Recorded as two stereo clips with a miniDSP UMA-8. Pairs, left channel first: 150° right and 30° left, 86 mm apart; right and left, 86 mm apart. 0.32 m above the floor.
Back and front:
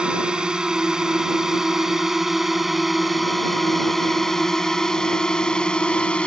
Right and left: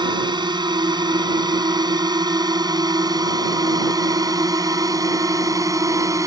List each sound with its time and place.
0.0 s a drone: 110° left; by 6.3 s 135° left